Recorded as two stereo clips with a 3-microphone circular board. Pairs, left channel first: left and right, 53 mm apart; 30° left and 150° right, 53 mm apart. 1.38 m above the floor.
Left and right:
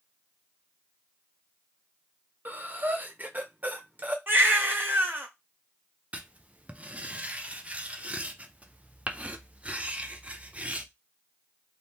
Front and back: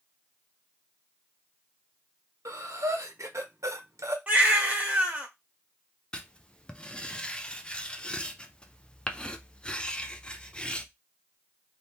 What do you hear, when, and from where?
2.5 s breathing: 145° right, 0.9 m
4.3 s a baby crying: 100° right, 1.3 m
6.1 s writing: 35° right, 0.5 m